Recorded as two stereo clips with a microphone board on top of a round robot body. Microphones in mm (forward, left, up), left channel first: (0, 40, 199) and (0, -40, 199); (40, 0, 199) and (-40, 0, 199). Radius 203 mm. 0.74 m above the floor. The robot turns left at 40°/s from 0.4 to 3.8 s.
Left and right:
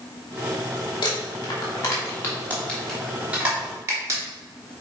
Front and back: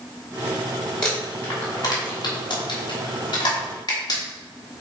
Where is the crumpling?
80° left, 3 m; by 4.2 s 35° right, 3 m.